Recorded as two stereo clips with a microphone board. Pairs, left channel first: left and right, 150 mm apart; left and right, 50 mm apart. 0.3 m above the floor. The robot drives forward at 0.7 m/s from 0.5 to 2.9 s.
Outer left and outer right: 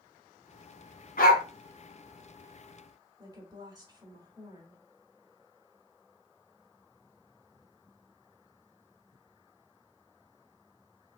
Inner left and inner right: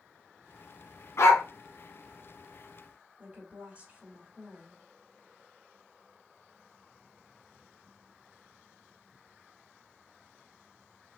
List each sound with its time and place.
1.2 s a dog barking: 70° left (ahead or behind), 0.8 m; by 1.4 s 75° left (ahead or behind), 0.8 m
3.2 s a woman speaking: 25° right (ahead or behind), 1.4 m